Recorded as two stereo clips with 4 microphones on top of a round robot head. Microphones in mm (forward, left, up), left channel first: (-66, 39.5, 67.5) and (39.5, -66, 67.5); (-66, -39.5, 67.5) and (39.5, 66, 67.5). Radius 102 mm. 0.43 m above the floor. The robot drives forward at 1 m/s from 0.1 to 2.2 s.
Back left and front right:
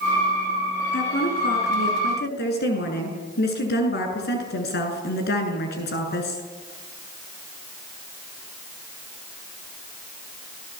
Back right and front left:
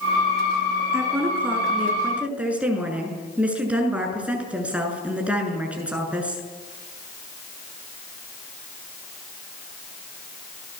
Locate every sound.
0.9 s a woman speaking: 120° left, 7 m; by 6.4 s 125° left, 7.5 m